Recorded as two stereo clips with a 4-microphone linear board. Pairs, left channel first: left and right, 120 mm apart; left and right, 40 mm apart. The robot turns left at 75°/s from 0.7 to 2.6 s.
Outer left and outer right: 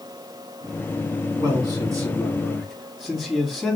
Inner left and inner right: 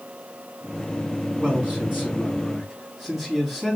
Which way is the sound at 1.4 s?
85° right.